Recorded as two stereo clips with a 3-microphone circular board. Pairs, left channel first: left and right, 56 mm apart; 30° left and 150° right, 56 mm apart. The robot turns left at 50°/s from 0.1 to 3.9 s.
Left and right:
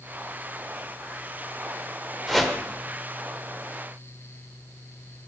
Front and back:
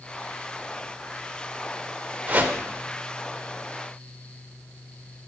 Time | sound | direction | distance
2.3 | a whoosh | 175° left | 1.5 m